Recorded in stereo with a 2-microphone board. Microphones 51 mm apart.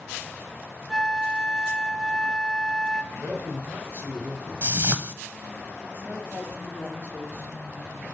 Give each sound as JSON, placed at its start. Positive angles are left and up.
{"t": 0.9, "sound": "a flute", "side_deg": 0, "distance_m": 0.7}
{"t": 3.1, "sound": "a man speaking", "side_deg": -65, "distance_m": 3.5}
{"t": 4.6, "sound": "a whoosh", "side_deg": -45, "distance_m": 0.7}
{"t": 5.9, "sound": "a woman speaking", "side_deg": -50, "distance_m": 5.0}